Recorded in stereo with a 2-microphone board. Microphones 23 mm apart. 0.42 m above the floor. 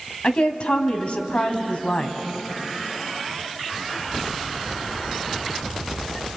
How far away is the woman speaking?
About 2.5 m.